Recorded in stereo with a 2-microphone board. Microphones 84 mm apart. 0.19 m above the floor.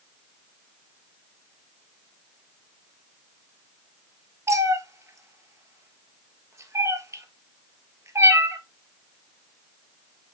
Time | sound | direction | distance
4.5 | a cat meowing | 35° right (ahead or behind) | 1.1 m